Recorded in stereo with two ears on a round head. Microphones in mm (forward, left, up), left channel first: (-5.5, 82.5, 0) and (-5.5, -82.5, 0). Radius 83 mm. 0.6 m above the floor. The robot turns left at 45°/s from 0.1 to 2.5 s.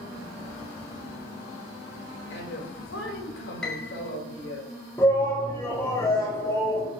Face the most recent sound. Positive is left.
turn(degrees=15)  # may be behind; listen again after turning